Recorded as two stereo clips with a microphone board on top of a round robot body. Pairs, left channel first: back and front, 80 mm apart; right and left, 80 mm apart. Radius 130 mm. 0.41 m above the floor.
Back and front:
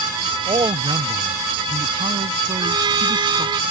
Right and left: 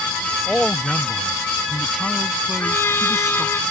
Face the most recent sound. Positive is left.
turn(degrees=-30)